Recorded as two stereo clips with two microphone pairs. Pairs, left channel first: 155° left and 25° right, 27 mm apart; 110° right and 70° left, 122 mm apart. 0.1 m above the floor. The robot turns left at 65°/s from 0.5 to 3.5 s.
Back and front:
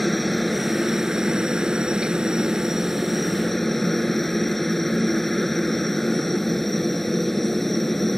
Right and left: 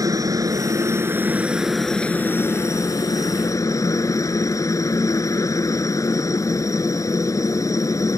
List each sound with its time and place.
0.0 s a helicopter: 65° left; by 8.2 s 130° right